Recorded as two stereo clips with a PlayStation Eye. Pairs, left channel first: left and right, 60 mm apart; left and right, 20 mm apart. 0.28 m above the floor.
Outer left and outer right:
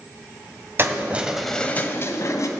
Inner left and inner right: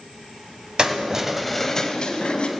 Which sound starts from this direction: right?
Keys jangling, at 0.8 s.